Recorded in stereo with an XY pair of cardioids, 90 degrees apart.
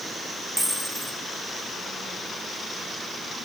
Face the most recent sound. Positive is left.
turn(degrees=-5)